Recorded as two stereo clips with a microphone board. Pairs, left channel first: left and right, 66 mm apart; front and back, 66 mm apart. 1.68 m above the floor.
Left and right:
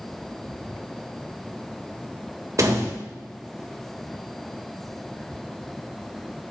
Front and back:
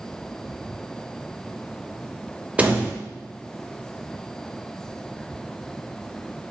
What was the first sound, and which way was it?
A door slam, 115° right.